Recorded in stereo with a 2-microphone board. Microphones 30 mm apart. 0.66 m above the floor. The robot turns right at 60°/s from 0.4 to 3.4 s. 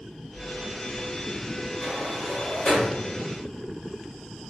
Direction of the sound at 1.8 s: 10° left (ahead or behind).